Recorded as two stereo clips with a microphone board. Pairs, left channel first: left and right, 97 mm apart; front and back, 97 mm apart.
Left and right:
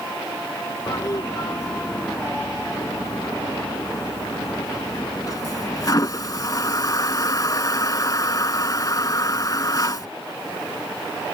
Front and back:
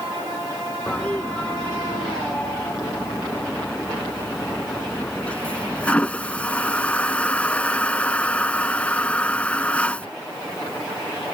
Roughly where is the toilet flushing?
Left.